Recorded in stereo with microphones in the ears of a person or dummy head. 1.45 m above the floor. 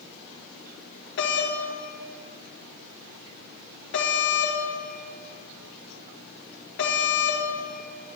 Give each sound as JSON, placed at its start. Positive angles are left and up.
{"t": 1.2, "sound": "a doorbell", "side_deg": 70, "distance_m": 1.7}